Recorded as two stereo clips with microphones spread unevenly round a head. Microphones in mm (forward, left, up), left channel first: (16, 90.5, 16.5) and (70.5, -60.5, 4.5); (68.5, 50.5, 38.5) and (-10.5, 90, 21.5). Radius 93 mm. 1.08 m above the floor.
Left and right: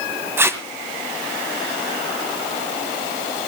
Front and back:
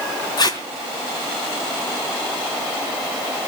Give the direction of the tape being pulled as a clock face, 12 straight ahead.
12 o'clock.